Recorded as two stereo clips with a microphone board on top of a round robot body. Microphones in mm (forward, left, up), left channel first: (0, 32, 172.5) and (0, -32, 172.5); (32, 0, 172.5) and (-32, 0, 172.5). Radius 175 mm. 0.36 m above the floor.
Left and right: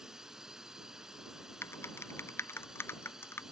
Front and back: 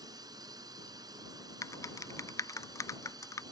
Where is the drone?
170° right.